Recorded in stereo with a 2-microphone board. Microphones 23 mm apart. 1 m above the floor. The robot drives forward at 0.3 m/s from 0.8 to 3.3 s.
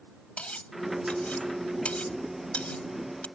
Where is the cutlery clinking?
85° left; by 3.3 s 75° left (ahead or behind).